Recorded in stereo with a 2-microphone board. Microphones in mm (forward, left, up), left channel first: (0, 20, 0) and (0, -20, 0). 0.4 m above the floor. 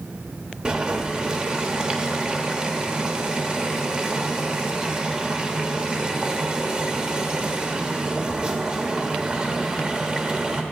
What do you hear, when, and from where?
0.7 s boiling: 30° right (ahead or behind), 0.9 m